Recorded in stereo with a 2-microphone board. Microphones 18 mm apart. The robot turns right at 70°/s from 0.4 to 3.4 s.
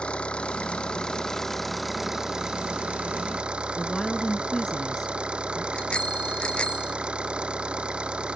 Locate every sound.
0.0 s an engine running: 85° left; by 8.3 s 65° right
3.8 s a woman speaking: 30° left (ahead or behind)
5.7 s a bicycle bell: 70° left (ahead or behind)